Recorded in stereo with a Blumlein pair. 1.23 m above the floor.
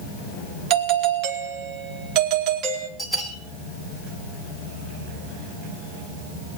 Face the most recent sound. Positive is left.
turn(degrees=5)